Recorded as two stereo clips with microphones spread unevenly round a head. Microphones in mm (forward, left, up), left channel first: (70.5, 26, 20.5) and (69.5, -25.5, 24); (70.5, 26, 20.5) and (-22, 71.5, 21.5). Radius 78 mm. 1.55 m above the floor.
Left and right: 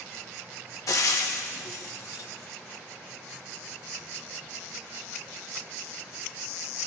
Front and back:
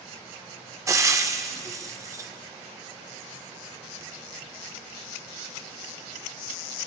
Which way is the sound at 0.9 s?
95° left.